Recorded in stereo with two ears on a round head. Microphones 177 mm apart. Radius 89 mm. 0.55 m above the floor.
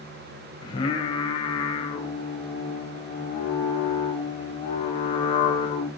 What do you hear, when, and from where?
0.6 s singing: 25° left (ahead or behind), 2.5 m